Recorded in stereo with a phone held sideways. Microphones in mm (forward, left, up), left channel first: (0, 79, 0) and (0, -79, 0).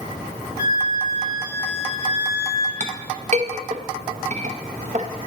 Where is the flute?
30° left (ahead or behind), 4 m.